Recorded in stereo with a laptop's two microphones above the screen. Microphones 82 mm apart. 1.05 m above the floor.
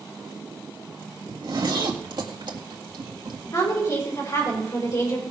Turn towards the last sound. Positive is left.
turn(degrees=40)  # may be behind; listen again after turning